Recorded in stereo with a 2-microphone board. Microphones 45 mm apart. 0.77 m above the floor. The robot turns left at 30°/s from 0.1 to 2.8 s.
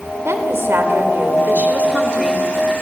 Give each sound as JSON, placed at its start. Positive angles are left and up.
{"t": 0.2, "sound": "a woman speaking", "azimuth_deg": -100, "distance_m": 3.0}